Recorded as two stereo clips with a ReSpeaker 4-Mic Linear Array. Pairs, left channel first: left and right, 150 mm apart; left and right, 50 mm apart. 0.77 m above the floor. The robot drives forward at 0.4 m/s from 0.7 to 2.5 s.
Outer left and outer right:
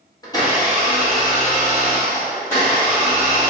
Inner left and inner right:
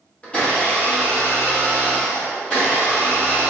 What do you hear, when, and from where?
0.2 s a blender: 25° left (ahead or behind), 1.1 m; by 3.5 s 20° left (ahead or behind), 1.6 m